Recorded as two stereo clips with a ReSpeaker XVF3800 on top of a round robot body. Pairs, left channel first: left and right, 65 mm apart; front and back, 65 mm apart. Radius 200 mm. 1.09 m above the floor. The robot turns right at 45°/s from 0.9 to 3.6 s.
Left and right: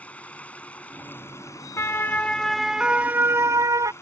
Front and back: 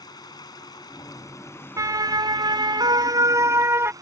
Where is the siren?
140° left; by 3.9 s 130° right.